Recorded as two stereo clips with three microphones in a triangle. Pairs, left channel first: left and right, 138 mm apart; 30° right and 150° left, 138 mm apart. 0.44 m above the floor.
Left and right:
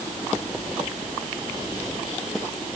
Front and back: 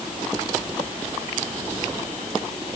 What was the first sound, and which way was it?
Only background noise.